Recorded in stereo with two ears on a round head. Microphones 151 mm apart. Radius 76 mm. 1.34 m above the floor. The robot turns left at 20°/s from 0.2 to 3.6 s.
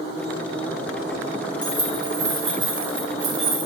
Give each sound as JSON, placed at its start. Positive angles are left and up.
{"t": 1.6, "sound": "keys jangling", "side_deg": -10, "distance_m": 2.5}